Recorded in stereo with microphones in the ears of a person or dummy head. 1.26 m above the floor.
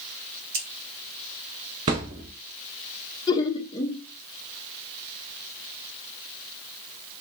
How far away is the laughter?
About 0.7 m.